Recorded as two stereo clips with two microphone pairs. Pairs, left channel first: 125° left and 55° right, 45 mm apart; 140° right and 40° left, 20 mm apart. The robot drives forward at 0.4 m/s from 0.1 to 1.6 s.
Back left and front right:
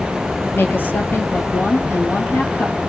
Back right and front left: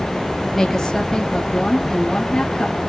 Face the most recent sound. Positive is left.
turn(degrees=150)